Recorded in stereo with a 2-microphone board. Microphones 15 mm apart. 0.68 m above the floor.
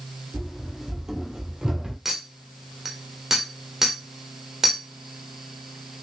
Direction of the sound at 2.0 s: 25° right (ahead or behind).